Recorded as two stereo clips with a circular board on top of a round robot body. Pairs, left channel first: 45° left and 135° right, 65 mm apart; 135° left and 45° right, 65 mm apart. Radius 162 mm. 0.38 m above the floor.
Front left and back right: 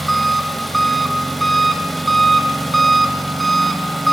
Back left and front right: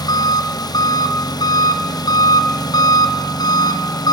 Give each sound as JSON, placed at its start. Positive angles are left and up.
{"t": 0.0, "sound": "an engine running", "azimuth_deg": 135, "distance_m": 1.2}